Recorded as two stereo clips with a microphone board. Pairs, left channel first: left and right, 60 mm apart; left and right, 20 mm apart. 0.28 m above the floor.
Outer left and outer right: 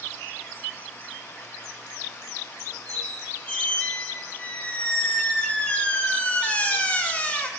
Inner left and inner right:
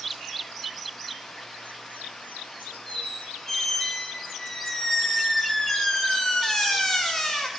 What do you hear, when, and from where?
2.9 s a squeak: 25° left (ahead or behind), 5.5 m